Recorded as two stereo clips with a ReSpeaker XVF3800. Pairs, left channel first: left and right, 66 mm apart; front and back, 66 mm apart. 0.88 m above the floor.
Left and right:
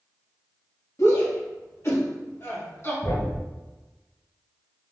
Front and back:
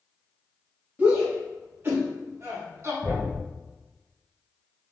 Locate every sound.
1.0 s a shout: 120° left, 2.0 m; by 2.9 s 140° left, 2.5 m
3.0 s a thud: 115° left, 1.8 m